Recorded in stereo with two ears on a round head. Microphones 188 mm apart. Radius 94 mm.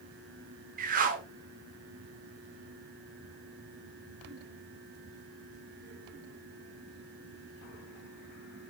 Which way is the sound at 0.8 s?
40° right (ahead or behind).